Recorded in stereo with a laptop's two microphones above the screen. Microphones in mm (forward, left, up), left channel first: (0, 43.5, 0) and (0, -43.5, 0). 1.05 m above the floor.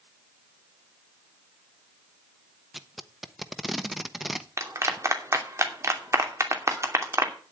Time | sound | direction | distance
2.7 | tape being pulled | 5° right (ahead or behind) | 1.0 m
4.6 | a clap | 35° right (ahead or behind) | 2.5 m